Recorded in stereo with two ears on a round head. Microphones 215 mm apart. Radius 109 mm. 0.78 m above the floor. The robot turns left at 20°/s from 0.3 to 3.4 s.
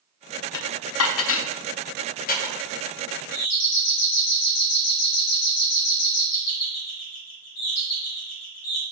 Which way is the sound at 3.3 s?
70° left (ahead or behind).